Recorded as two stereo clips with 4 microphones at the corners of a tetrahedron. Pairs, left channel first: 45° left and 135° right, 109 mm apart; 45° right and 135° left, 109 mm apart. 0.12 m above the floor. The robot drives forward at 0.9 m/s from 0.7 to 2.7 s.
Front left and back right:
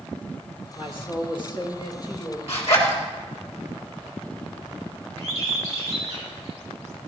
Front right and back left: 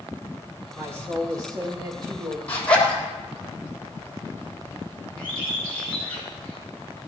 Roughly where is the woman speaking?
Left.